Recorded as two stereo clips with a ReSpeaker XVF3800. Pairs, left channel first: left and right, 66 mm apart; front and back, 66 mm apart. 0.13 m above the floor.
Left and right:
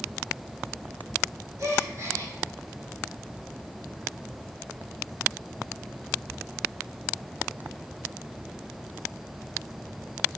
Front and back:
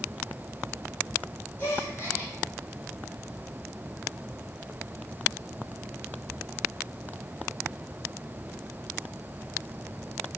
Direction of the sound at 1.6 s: 50° right.